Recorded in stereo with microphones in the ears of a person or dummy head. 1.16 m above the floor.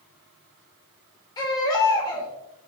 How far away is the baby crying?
About 2.5 m.